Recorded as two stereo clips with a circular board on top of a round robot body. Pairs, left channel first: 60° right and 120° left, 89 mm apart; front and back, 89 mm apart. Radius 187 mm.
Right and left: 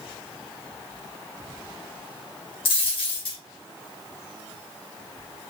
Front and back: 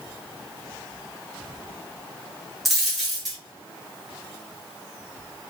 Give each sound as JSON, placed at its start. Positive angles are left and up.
{"t": 2.6, "sound": "a dropped coin", "azimuth_deg": -90, "distance_m": 1.4}